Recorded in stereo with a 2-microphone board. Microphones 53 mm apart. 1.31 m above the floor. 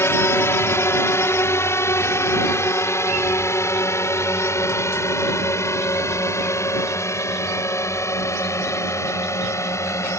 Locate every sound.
0.0 s a drone: 55° left (ahead or behind); by 10.2 s 70° left (ahead or behind)